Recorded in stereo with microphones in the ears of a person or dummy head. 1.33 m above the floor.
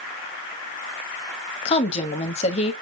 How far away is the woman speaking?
About 1.2 m.